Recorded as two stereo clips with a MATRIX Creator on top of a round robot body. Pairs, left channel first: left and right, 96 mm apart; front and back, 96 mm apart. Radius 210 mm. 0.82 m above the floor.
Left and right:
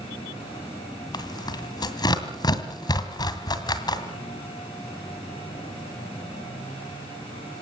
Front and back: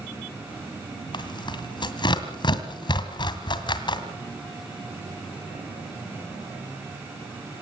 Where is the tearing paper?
40° left, 2 m.